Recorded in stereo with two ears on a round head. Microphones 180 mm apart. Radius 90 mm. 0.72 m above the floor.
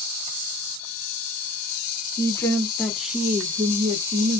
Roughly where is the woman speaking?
Centre.